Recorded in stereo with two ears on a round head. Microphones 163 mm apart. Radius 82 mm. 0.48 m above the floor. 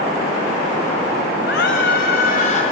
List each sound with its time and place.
1.5 s a scream: 65° left (ahead or behind), 3 m; by 2.6 s 40° left (ahead or behind), 3 m